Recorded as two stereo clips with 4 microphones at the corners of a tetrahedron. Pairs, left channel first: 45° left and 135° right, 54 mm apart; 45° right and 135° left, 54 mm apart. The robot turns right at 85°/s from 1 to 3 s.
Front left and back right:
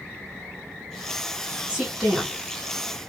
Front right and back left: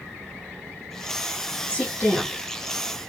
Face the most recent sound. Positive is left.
turn(degrees=20)